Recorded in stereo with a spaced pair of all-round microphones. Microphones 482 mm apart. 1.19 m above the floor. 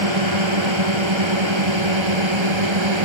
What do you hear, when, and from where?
0.0 s a drone: 85° right